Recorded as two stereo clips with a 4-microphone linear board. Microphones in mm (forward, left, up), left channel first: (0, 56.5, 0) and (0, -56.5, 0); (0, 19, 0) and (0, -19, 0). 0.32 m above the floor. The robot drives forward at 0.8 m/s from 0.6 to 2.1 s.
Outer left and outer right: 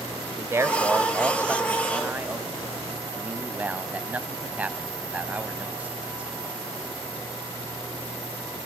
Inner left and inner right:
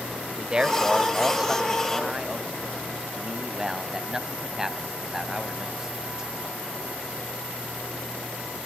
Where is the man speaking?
25° right (ahead or behind), 1.0 m; by 6.3 s 15° right (ahead or behind), 1.8 m.